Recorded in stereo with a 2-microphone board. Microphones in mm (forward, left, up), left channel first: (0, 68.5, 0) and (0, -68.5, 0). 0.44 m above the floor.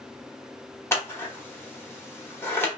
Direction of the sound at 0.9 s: 20° left (ahead or behind).